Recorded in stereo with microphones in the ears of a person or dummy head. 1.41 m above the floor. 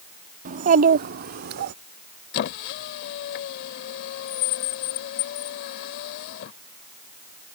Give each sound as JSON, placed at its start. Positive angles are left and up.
{"t": 0.5, "sound": "a child speaking", "side_deg": -40}
{"t": 2.3, "sound": "a squeak", "side_deg": 55}